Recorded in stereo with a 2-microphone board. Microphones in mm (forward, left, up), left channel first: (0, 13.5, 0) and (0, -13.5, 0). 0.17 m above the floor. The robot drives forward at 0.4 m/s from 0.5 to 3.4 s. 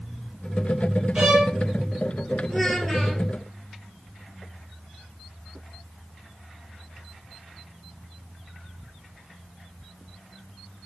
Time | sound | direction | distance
1.1 | a violin | 30° right (ahead or behind) | 2.5 m
2.5 | a child speaking | 5° left (ahead or behind) | 2 m